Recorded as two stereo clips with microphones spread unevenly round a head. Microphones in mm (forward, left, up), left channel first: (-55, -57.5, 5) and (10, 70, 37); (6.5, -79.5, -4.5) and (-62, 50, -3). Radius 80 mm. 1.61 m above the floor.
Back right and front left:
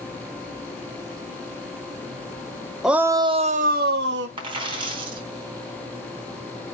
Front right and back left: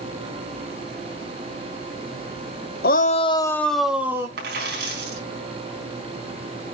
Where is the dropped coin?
115° left, 4 m.